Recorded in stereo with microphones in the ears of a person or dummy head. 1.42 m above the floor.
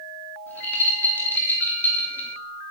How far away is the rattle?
About 3 m.